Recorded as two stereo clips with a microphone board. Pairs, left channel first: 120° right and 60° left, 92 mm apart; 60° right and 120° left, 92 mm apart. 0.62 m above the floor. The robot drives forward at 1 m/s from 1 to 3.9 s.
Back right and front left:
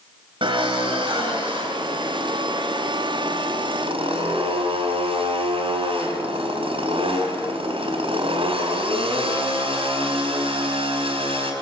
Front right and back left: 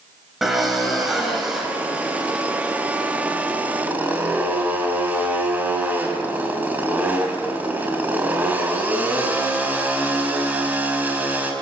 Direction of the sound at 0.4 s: 35° left.